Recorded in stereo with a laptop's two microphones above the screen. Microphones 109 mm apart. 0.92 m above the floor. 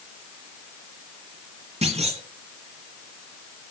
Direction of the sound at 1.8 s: 70° right (ahead or behind).